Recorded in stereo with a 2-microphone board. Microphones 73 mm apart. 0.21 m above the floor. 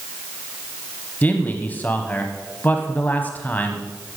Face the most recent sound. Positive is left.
turn(degrees=25)  # may be behind; listen again after turning